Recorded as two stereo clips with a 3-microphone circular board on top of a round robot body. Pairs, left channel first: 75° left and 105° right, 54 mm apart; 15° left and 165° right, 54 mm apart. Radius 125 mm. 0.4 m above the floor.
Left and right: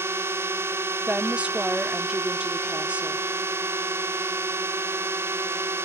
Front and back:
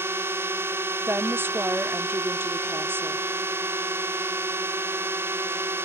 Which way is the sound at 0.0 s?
135° right.